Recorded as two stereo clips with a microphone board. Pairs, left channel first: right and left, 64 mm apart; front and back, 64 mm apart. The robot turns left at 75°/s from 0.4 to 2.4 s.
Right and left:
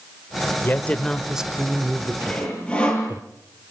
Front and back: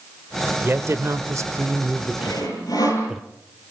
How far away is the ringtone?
I don't hear a ringtone.